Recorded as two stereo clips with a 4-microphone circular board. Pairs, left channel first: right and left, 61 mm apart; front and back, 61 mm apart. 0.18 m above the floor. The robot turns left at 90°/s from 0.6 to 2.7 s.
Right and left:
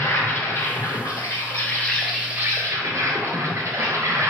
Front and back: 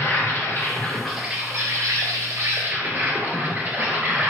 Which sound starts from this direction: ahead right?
An insect, at 0.0 s.